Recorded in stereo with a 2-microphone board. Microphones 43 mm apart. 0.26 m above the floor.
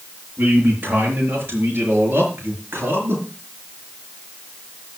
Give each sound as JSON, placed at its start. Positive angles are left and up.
{"t": 0.4, "sound": "a man speaking", "side_deg": -45, "distance_m": 6.0}